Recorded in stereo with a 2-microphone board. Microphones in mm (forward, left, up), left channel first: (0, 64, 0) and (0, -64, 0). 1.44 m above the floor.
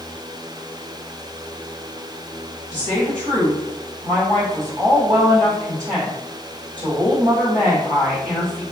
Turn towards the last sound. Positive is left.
turn(degrees=-75)  # may be behind; listen again after turning